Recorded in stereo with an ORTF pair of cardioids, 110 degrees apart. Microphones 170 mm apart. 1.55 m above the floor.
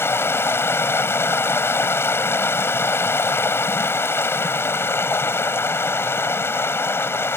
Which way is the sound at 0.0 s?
15° left.